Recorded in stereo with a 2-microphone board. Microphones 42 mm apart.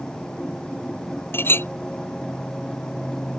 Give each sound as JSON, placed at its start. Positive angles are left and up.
{"t": 1.3, "sound": "a clink", "side_deg": 60}